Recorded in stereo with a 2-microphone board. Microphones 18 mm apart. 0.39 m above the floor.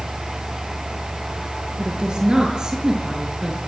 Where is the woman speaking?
45° right (ahead or behind), 9.5 m; by 3.6 s 35° right (ahead or behind), 7 m.